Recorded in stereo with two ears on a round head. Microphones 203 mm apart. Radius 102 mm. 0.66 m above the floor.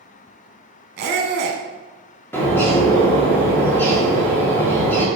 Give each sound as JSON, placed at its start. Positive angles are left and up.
{"t": 1.0, "sound": "a squeak", "side_deg": -45, "distance_m": 0.7}
{"t": 2.3, "sound": "a bird", "side_deg": 10, "distance_m": 1.0}